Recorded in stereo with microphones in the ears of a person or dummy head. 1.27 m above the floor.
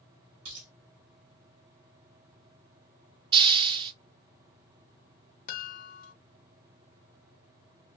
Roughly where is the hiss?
Right.